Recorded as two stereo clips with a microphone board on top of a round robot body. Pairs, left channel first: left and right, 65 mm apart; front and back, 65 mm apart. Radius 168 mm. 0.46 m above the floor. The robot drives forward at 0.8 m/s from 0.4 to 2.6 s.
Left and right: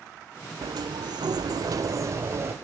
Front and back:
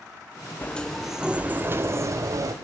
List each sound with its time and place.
0.6 s a sliding door: 70° right, 0.9 m; by 2.5 s 145° right, 1.5 m